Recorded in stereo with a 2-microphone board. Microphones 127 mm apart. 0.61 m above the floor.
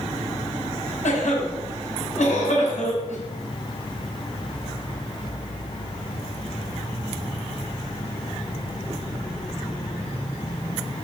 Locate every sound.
1.0 s a cough: 75° left (ahead or behind), 5.5 m